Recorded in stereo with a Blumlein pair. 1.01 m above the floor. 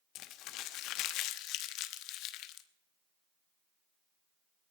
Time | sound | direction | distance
0.1 | crumpling | 40° left | 1.0 m